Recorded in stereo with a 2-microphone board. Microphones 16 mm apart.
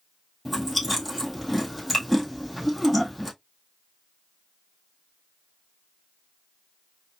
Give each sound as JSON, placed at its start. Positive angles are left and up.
{"t": 0.5, "sound": "chewing", "side_deg": 5, "distance_m": 1.8}